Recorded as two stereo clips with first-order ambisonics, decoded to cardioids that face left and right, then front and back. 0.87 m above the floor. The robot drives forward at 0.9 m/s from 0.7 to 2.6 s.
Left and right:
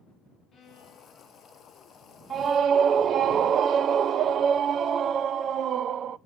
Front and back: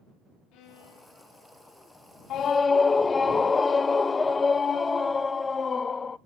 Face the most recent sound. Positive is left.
turn(degrees=-65)